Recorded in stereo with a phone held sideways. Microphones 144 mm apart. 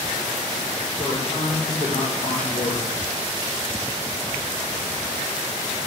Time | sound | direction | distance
1.0 | a man speaking | 55° left (ahead or behind) | 2 m